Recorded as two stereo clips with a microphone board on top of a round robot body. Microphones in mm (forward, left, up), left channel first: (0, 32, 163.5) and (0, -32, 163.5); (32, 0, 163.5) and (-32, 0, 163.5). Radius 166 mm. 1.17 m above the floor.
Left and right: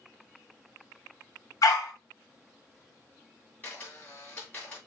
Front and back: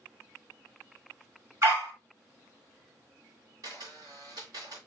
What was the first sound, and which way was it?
A dog barking, 130° left.